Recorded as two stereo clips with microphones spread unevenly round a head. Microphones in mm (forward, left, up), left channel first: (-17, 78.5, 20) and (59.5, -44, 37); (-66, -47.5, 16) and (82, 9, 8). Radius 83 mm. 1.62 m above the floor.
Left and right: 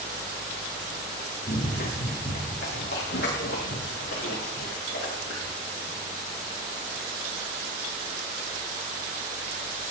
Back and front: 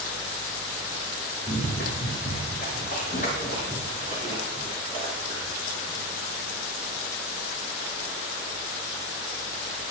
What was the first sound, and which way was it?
Running footsteps, 165° left.